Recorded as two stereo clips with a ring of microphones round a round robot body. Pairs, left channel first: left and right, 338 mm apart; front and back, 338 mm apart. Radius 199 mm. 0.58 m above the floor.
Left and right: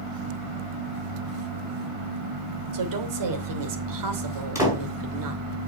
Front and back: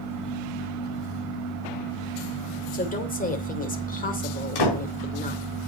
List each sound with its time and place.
2.7 s a woman speaking: 65° right, 2.5 m
4.5 s a door slam: 10° right, 5 m